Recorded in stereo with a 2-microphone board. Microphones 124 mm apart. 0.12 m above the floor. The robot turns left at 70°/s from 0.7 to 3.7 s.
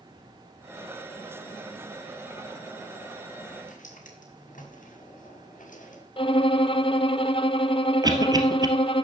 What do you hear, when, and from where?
3.7 s footsteps: 80° left, 6 m; by 6.0 s 90° left, 4.5 m
6.2 s a violin: 45° left (ahead or behind), 0.6 m
8.0 s a cough: 30° right (ahead or behind), 2 m